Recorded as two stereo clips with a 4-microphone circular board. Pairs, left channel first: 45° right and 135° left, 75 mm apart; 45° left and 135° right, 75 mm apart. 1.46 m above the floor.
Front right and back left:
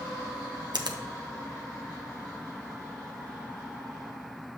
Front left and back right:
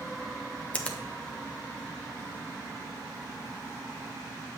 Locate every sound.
0.7 s a finger snap: 115° left, 0.7 m